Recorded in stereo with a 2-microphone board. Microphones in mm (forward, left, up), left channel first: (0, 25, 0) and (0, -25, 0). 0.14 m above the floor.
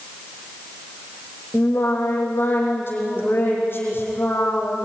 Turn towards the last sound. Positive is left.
turn(degrees=45)  # may be behind; listen again after turning